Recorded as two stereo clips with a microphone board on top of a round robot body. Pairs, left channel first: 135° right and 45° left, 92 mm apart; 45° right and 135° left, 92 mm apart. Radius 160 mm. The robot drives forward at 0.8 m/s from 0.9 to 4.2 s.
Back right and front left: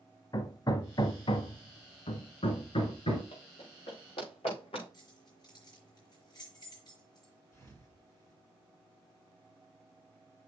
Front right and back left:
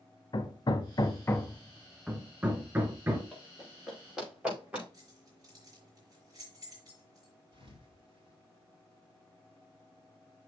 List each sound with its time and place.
0.3 s hammering: 85° right, 0.8 m; by 3.2 s 155° right, 2.0 m
3.3 s running footsteps: 130° right, 6 m; by 4.8 s 150° right, 6.5 m
4.9 s keys jangling: 175° right, 5 m
7.5 s a thud: 165° left, 3.5 m